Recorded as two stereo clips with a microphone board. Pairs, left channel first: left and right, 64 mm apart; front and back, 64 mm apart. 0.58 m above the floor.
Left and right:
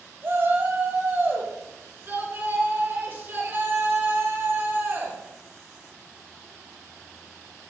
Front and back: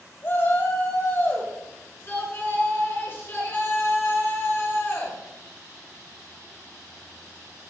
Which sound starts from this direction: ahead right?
A shout, at 0.2 s.